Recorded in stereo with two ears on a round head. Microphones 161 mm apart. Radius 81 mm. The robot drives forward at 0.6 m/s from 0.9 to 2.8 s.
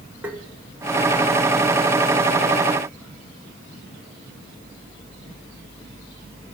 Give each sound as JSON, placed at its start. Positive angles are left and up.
{"t": 0.2, "sound": "tapping", "side_deg": -10, "distance_m": 2.0}